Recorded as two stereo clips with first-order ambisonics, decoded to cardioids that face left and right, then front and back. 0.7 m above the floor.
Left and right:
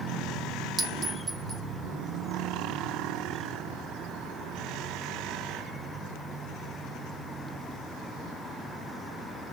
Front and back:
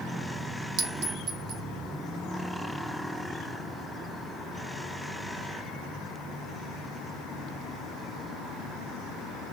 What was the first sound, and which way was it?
A clink, 160° right.